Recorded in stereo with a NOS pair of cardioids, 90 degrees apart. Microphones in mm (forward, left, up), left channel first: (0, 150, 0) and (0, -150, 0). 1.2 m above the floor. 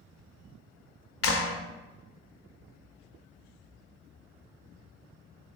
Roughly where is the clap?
Ahead left.